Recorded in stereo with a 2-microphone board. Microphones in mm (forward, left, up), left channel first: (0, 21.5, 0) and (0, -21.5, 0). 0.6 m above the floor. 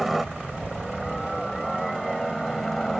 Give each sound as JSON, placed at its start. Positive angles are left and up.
{"t": 0.0, "sound": "a helicopter", "side_deg": -5}